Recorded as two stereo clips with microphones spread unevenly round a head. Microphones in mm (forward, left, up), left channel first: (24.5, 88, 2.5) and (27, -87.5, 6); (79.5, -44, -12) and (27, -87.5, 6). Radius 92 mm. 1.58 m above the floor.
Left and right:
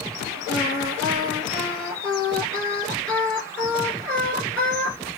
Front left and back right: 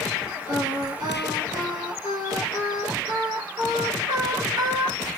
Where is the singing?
175° left, 5 m.